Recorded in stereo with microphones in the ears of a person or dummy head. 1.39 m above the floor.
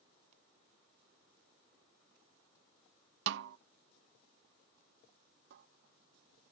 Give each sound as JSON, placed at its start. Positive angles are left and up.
{"t": 3.3, "sound": "a snare drum", "side_deg": -75}
{"t": 5.5, "sound": "a cupboard door", "side_deg": -65}